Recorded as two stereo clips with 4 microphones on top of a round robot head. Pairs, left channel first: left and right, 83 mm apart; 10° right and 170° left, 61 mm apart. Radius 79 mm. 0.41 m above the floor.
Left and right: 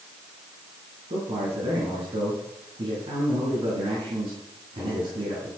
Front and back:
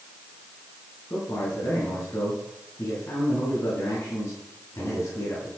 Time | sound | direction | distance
1.1 | a man speaking | 60° right | 6 m